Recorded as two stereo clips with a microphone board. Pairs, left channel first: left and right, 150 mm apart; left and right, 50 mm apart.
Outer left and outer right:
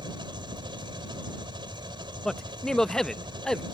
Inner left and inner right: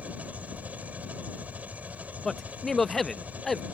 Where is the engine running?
30° right (ahead or behind).